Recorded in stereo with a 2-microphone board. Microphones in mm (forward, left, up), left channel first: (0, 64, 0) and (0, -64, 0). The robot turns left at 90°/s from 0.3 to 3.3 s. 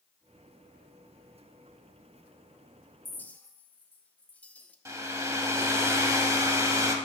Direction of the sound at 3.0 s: 15° left (ahead or behind).